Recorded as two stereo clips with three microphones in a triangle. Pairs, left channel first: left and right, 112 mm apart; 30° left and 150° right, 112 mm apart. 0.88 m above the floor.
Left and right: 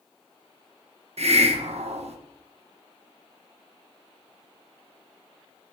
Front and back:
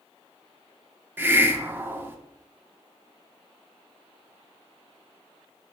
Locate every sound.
1.2 s a hiss: 80° right, 0.7 m